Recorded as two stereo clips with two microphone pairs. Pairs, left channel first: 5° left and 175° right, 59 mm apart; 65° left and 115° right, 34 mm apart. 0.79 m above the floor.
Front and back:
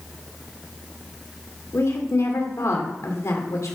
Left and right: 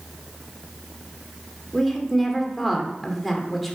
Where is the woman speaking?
25° right, 1.8 m.